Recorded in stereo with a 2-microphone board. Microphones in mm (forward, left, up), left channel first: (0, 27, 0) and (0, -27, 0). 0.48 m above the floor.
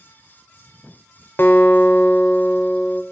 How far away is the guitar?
About 1.0 m.